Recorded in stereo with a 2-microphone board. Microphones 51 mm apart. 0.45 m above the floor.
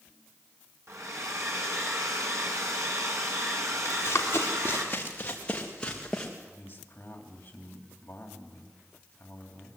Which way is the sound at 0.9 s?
70° right (ahead or behind).